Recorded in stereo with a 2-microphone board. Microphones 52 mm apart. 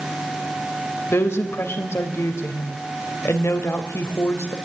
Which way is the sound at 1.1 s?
60° left (ahead or behind).